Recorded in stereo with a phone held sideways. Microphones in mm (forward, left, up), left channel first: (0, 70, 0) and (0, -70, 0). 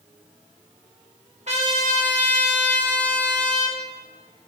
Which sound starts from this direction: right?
A trumpet, at 1.5 s.